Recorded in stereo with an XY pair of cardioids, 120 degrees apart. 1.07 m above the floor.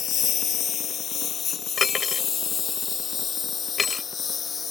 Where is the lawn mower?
50° left; by 4.7 s 35° left.